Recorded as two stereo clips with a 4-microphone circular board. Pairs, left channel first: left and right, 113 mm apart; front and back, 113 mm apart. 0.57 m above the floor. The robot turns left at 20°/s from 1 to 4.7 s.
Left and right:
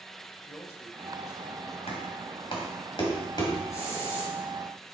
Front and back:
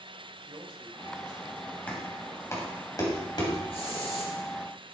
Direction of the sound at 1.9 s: 75° left.